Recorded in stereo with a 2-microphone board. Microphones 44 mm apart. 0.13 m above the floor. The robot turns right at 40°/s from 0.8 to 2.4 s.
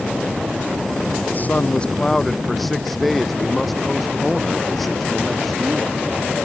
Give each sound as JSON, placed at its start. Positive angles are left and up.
{"t": 1.3, "sound": "a man speaking", "azimuth_deg": 135}